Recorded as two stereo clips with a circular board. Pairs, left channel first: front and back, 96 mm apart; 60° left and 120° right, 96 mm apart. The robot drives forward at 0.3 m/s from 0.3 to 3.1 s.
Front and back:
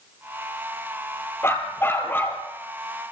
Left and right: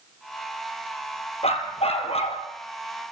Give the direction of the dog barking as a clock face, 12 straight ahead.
10 o'clock.